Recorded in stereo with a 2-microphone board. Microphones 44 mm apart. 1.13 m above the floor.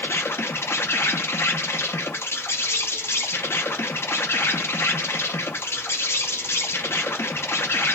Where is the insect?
70° left (ahead or behind), 0.7 m.